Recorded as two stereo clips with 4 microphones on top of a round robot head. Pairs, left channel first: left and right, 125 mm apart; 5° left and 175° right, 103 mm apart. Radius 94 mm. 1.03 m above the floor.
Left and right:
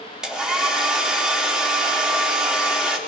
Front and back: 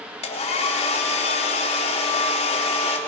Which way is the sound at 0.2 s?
5° right.